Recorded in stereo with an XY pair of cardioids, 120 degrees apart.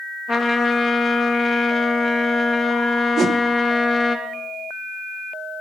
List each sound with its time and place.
0.3 s a trumpet: 40° left, 1.9 m
3.2 s a whoosh: 35° right, 1.2 m